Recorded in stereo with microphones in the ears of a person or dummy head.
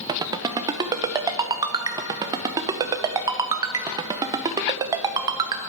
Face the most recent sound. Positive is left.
turn(degrees=-15)  # may be behind; listen again after turning